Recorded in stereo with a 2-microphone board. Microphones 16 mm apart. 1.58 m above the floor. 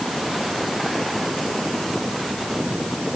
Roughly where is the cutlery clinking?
I don't hear cutlery clinking.